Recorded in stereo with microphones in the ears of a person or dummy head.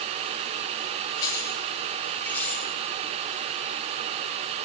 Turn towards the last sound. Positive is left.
turn(degrees=10)  # may be behind; listen again after turning